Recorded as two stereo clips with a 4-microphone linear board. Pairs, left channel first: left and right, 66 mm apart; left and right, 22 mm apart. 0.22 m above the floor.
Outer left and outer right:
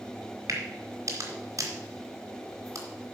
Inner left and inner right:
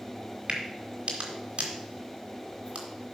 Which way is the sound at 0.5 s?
55° right (ahead or behind).